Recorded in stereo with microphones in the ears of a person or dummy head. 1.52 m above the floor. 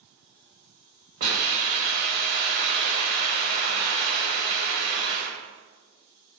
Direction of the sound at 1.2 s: 50° right (ahead or behind).